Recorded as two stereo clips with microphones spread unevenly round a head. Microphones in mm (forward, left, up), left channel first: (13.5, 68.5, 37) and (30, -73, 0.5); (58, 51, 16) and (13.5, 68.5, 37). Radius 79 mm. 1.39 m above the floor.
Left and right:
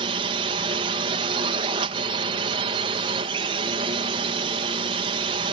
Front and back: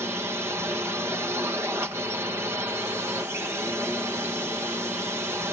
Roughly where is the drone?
Behind right.